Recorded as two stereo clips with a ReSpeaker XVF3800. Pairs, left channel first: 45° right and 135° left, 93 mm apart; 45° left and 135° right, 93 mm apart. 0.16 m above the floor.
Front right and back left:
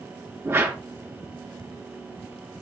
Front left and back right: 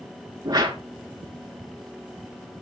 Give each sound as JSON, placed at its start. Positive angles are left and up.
{"t": 0.5, "sound": "a whoosh", "azimuth_deg": -165, "distance_m": 1.9}